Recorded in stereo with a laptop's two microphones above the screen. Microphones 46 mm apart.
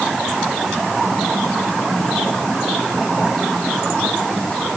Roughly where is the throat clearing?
I don't hear throat clearing.